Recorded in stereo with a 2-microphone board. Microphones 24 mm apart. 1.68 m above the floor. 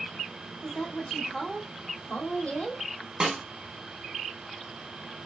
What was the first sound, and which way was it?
A woman speaking, 45° left (ahead or behind).